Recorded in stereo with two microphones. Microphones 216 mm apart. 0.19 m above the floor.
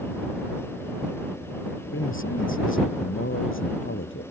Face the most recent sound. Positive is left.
turn(degrees=70)  # may be behind; listen again after turning